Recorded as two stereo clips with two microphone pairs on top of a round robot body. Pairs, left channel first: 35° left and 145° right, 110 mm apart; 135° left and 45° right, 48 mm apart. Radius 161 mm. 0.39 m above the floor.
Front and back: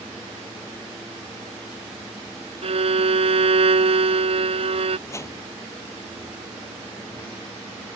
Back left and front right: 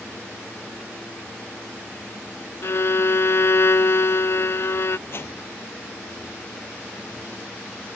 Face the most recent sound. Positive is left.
turn(degrees=100)